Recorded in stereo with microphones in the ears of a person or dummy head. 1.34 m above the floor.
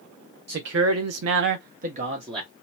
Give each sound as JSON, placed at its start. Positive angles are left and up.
{"t": 0.5, "sound": "a man speaking", "side_deg": -50, "distance_m": 0.7}